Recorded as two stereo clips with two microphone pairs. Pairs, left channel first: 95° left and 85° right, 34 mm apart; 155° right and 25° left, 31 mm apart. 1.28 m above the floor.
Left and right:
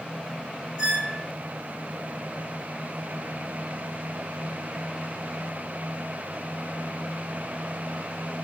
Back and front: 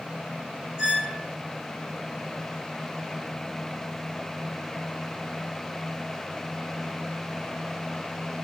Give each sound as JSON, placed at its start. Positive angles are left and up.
{"t": 0.8, "sound": "a squeak", "azimuth_deg": -35, "distance_m": 3.5}